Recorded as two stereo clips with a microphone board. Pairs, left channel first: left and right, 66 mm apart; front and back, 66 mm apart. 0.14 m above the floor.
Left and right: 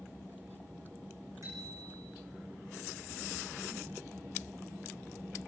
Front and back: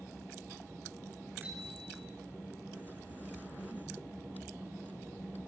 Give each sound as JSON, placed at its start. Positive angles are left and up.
{"t": 1.4, "sound": "a bicycle bell", "azimuth_deg": -120, "distance_m": 7.0}